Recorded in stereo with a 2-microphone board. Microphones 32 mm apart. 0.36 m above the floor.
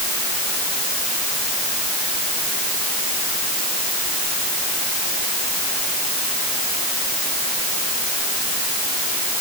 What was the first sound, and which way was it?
Only background noise.